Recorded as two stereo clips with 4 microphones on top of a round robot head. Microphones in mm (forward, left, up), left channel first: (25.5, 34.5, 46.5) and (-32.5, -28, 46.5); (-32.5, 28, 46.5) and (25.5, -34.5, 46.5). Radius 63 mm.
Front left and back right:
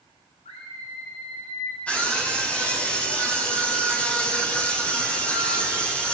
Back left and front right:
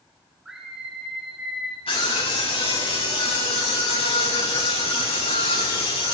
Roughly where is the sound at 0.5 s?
Ahead left.